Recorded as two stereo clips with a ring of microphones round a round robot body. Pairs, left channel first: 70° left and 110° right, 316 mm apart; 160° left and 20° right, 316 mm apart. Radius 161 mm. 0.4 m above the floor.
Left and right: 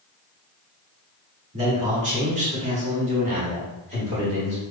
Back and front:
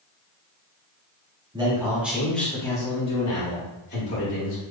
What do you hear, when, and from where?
1.5 s a man speaking: 75° right, 1.5 m; by 4.6 s 175° right, 2 m